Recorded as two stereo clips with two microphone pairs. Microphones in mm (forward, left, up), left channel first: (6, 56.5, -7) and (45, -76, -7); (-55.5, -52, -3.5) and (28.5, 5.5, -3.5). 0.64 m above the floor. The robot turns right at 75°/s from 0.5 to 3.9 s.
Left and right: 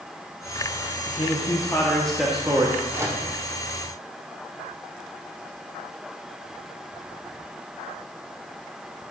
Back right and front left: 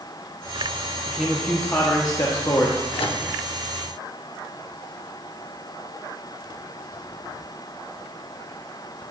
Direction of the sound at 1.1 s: 115° left.